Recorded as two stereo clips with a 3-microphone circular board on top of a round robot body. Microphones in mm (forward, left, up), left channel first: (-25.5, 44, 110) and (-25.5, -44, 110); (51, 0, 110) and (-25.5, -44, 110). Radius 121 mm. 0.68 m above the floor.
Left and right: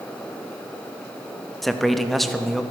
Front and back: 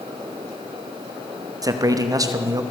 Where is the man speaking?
Straight behind, 1.1 m.